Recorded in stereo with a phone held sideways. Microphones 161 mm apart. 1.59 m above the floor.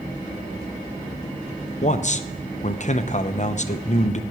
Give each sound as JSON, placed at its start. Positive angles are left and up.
{"t": 1.8, "sound": "a man speaking", "side_deg": 50, "distance_m": 0.8}